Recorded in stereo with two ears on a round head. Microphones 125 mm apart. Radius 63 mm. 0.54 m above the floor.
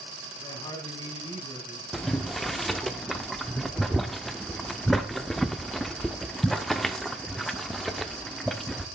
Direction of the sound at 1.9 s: Centre (ahead or behind).